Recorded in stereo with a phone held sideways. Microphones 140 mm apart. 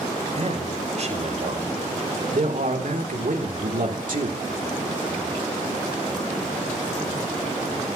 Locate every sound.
0.3 s a man speaking: 50° right (ahead or behind), 5.5 m; by 4.4 s 70° right (ahead or behind), 3 m